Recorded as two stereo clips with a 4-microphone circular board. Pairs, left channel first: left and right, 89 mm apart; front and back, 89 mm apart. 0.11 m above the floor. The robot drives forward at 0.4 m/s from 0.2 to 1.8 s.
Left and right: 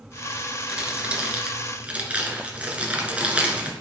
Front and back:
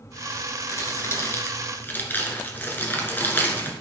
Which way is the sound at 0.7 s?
25° right.